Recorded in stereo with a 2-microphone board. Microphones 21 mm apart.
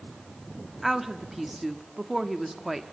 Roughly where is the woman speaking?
Centre.